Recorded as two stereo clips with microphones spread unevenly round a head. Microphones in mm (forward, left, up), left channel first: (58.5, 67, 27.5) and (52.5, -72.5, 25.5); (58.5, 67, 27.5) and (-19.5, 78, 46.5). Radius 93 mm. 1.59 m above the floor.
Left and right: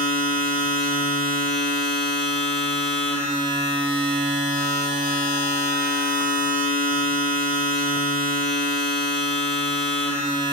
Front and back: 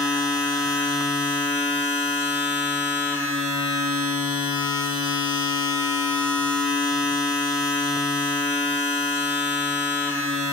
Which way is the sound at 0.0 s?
80° left.